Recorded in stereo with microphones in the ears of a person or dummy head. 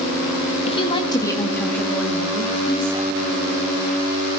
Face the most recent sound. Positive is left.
turn(degrees=-10)  # may be behind; listen again after turning